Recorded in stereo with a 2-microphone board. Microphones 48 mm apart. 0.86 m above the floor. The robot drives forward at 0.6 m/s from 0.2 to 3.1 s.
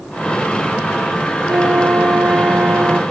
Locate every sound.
1.5 s a flute: 65° right (ahead or behind); by 3.0 s 45° right (ahead or behind)